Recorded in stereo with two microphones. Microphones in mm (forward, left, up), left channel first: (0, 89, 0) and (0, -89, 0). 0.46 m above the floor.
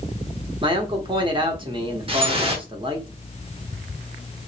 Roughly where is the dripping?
Right.